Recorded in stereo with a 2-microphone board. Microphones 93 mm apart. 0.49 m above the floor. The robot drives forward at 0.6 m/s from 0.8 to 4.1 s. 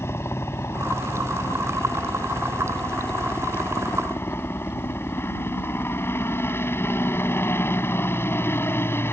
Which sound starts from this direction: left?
A helicopter, at 0.0 s.